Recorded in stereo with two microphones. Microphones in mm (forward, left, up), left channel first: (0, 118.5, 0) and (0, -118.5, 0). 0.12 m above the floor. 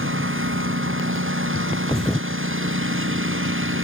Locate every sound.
0.0 s a lawn mower: 60° right (ahead or behind)
1.9 s a thud: centre (ahead or behind)